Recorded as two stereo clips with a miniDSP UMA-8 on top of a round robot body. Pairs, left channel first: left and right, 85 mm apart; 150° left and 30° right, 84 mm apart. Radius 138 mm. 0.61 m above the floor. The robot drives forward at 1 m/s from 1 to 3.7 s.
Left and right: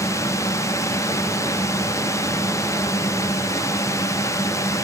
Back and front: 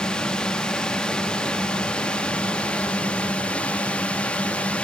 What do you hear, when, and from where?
0.0 s a drone: 75° left; by 4.8 s 85° left